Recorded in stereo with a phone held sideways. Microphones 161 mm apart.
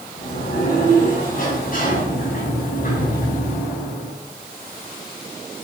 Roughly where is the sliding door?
Left.